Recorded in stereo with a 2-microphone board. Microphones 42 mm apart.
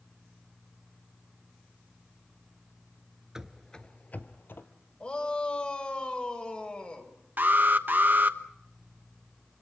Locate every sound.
3.4 s running footsteps: 15° right (ahead or behind), 0.9 m; by 4.7 s 60° left (ahead or behind), 1.9 m
5.0 s a shout: 25° left (ahead or behind), 4.5 m
7.4 s an alarm: 50° right (ahead or behind), 1.1 m